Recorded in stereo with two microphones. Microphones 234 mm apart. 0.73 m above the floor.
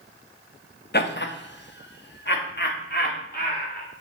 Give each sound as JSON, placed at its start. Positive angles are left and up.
{"t": 0.9, "sound": "laughter", "side_deg": 45, "distance_m": 0.7}